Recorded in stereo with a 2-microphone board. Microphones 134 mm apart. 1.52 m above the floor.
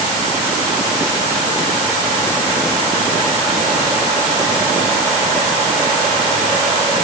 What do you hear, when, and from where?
Only background noise.